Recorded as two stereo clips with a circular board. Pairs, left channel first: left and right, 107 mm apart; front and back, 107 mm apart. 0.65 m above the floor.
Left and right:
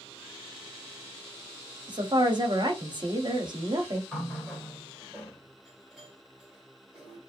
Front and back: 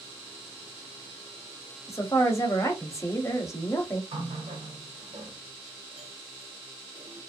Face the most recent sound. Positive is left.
turn(degrees=-170)